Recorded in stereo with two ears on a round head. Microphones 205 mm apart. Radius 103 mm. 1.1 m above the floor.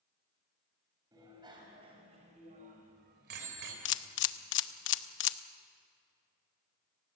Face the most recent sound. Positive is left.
turn(degrees=60)  # may be behind; listen again after turning